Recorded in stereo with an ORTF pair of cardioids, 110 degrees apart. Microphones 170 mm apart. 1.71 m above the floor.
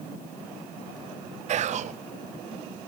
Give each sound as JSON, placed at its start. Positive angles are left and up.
{"t": 1.5, "sound": "whispering", "azimuth_deg": -45, "distance_m": 0.6}